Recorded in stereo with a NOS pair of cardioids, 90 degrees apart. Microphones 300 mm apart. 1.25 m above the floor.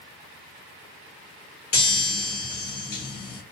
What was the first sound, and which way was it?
A chime, 35° left.